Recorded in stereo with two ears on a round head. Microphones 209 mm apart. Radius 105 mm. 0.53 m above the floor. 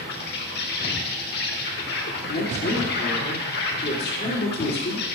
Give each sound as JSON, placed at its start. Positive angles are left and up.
{"t": 0.0, "sound": "an insect", "side_deg": 45, "distance_m": 0.9}
{"t": 2.3, "sound": "a woman speaking", "side_deg": 45, "distance_m": 1.7}